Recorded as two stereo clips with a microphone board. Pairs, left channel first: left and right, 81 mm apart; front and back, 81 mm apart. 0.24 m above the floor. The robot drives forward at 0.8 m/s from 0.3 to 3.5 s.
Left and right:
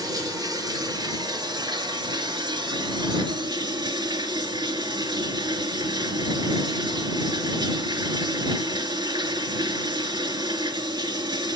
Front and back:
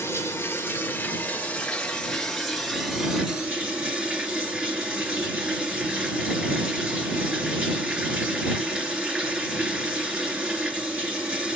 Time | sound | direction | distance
0.0 | running water | 55° right | 3.5 m